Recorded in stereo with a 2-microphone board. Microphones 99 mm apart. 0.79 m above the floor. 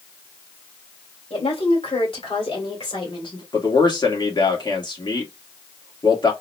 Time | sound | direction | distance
1.3 | a woman speaking | 75° left (ahead or behind) | 2.5 m
3.5 | a man speaking | 50° left (ahead or behind) | 1.5 m